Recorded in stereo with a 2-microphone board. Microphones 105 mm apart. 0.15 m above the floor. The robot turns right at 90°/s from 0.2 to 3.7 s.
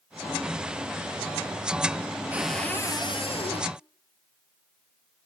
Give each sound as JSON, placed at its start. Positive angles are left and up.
{"t": 2.3, "sound": "a cupboard door", "azimuth_deg": -15, "distance_m": 0.9}